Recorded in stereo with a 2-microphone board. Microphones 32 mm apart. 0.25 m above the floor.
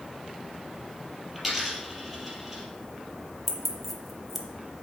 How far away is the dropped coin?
About 3 m.